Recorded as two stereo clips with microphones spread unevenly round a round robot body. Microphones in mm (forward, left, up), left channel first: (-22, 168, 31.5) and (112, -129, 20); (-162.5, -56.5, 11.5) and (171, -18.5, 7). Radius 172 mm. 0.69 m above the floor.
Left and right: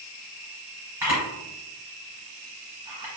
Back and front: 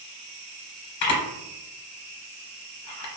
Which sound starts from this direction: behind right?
A camera shutter, at 1.0 s.